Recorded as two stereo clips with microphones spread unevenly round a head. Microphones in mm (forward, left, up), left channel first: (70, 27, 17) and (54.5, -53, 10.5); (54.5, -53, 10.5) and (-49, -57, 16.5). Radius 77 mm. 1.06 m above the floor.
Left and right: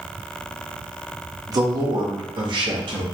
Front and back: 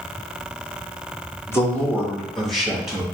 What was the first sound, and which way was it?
A man speaking, 60° right.